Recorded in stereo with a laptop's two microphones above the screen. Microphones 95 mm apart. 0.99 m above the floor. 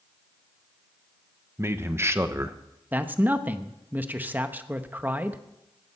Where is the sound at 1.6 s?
25° right (ahead or behind), 0.9 m.